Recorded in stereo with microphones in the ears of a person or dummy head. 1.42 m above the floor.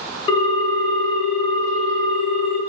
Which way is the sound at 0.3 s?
35° left (ahead or behind).